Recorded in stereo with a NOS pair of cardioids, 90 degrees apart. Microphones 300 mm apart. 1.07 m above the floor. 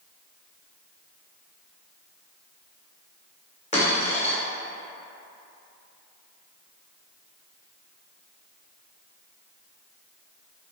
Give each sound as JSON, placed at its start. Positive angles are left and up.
{"t": 3.7, "sound": "a dropped coin", "azimuth_deg": 20, "distance_m": 1.7}